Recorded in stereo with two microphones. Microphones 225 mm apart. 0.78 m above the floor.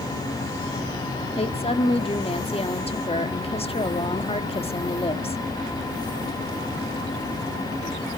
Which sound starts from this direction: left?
A woman speaking, at 1.4 s.